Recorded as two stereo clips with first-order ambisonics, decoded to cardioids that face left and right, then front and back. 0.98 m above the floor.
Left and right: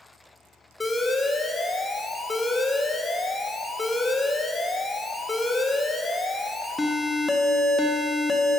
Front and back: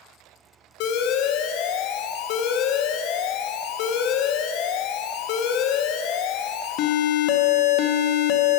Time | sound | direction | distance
0.8 | an alarm | 10° left | 0.5 m